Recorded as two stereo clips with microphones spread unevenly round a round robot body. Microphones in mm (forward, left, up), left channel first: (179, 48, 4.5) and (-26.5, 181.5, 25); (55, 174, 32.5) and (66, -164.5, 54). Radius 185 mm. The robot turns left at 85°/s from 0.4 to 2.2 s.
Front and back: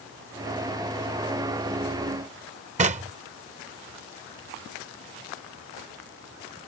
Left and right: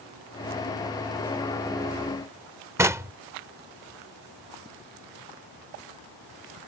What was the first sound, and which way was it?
Knocking, 170° right.